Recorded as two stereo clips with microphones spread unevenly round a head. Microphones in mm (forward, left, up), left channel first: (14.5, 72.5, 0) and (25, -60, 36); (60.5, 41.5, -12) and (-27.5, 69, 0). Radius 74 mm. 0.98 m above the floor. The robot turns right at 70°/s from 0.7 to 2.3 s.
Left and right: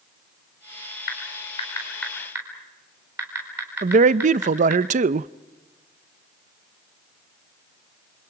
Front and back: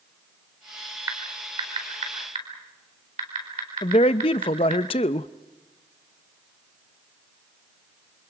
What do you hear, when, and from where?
1.1 s typing on a keyboard: 115° left, 4.5 m; by 4.8 s 160° right, 4.5 m
3.8 s a man speaking: 50° right, 0.5 m